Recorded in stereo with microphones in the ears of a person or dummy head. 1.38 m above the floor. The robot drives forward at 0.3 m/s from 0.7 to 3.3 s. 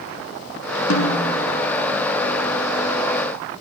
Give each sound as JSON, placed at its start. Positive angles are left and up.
{"t": 0.9, "sound": "a snare drum", "side_deg": 80, "distance_m": 3.5}